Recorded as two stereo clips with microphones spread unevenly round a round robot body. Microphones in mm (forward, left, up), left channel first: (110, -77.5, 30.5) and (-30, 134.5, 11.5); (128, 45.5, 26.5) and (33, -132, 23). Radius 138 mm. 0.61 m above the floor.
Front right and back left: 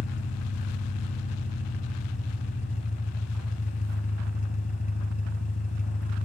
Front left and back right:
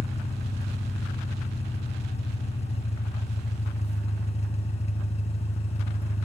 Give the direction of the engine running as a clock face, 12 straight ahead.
12 o'clock.